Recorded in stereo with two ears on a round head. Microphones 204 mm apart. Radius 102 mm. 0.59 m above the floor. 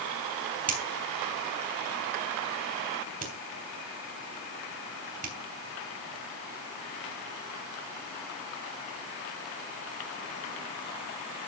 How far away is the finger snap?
About 3.5 m.